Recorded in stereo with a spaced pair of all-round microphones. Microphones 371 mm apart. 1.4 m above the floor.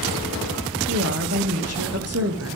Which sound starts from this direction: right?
A woman speaking, at 0.9 s.